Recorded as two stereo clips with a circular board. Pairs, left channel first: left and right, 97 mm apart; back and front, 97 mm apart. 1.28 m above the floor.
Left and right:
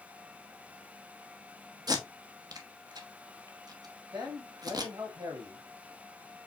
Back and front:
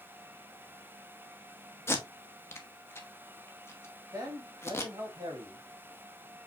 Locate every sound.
1.9 s tape being pulled: 120° right, 0.8 m
4.1 s a man speaking: 55° right, 1.8 m